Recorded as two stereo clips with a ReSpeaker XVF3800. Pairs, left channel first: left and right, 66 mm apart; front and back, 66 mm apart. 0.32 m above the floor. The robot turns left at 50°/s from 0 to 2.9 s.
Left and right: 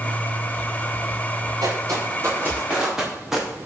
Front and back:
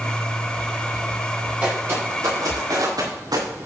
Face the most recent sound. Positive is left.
turn(degrees=-175)